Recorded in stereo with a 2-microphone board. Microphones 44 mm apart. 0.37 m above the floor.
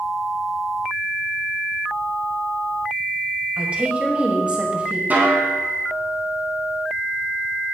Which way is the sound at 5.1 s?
40° right (ahead or behind).